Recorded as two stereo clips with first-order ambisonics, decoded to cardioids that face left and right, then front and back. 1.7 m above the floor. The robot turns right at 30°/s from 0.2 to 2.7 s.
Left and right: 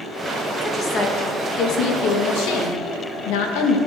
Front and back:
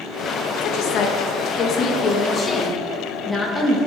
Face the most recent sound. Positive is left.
turn(degrees=85)